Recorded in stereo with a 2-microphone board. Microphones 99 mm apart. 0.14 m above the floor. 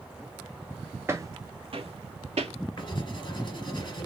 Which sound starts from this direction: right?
Footsteps, at 1.1 s.